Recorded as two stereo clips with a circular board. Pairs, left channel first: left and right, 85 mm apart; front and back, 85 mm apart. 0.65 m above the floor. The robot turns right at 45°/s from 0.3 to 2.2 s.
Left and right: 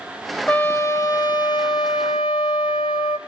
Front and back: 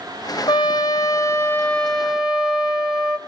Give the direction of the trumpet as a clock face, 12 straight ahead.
11 o'clock.